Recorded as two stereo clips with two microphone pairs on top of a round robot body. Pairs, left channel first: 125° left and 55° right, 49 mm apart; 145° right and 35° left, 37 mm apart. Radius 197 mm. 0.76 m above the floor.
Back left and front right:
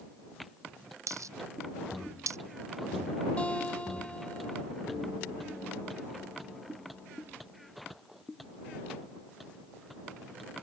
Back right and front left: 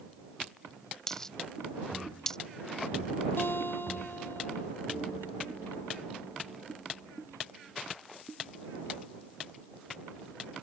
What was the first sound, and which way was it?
A dropped coin, 65° right.